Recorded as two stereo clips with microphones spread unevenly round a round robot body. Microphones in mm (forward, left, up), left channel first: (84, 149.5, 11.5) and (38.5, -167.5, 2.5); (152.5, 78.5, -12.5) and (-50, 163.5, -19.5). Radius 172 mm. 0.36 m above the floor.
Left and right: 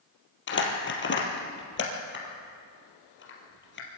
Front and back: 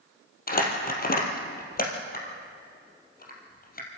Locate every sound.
0.5 s crumpling: 25° left, 3.5 m